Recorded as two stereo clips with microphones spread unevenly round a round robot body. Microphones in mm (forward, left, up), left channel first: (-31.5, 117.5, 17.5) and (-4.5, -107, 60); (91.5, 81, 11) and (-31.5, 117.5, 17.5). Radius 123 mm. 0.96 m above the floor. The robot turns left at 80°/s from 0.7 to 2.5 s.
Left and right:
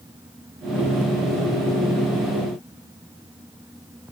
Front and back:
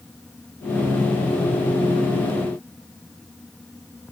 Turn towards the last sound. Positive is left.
No sound to turn to.